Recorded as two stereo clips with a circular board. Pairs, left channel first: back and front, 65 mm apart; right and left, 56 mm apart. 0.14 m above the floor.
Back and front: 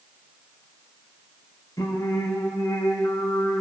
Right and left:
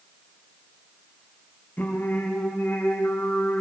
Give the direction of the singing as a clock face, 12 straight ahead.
5 o'clock.